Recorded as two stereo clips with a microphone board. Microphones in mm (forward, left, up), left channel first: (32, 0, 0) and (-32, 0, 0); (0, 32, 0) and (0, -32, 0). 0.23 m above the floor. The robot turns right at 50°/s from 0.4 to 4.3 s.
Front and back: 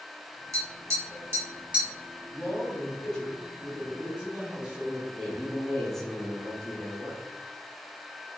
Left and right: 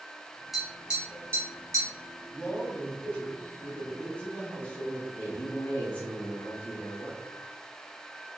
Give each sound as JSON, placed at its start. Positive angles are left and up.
{"t": 0.5, "sound": "tapping", "azimuth_deg": -175, "distance_m": 1.5}
{"t": 2.3, "sound": "a man speaking", "azimuth_deg": 30, "distance_m": 1.7}
{"t": 5.2, "sound": "a man speaking", "azimuth_deg": 75, "distance_m": 1.3}